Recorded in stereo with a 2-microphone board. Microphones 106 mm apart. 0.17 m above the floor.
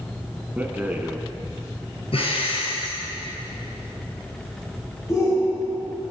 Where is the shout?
30° left (ahead or behind), 5.5 m.